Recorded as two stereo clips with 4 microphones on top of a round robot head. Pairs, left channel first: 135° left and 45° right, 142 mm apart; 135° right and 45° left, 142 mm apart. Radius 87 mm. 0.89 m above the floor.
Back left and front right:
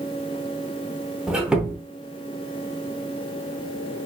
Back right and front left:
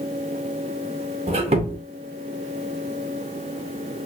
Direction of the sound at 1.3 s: 35° left.